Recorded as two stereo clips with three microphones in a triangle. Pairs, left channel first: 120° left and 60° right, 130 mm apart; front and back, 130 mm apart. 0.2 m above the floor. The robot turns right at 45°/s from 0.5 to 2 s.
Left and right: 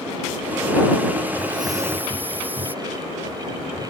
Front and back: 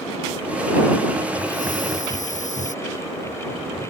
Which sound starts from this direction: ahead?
A hiss, at 1.4 s.